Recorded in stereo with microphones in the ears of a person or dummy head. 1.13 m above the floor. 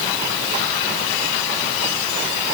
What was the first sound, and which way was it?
Only background noise.